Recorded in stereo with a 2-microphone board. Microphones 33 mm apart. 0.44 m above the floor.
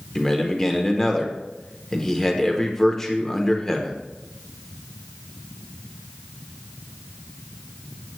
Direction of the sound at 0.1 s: 15° left (ahead or behind).